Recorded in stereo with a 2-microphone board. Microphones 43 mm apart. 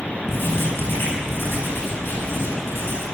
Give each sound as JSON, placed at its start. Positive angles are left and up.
{"t": 0.3, "sound": "writing", "side_deg": 65, "distance_m": 9.5}